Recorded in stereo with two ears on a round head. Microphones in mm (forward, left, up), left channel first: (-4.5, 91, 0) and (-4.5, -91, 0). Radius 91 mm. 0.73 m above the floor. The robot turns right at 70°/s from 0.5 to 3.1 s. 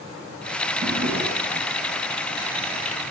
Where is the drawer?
130° right, 3 m; by 1.7 s 70° right, 3 m.